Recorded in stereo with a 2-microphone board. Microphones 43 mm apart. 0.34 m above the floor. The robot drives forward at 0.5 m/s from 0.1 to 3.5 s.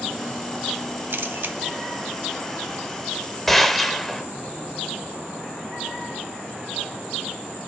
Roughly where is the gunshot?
Centre.